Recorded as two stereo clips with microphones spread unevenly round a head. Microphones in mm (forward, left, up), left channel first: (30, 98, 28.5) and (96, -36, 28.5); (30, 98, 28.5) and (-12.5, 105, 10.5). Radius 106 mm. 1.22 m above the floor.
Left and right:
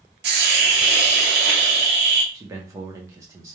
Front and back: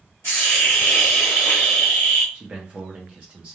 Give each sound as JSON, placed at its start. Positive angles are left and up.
{"t": 0.2, "sound": "a hiss", "azimuth_deg": -80, "distance_m": 0.7}
{"t": 2.3, "sound": "a man speaking", "azimuth_deg": -135, "distance_m": 0.5}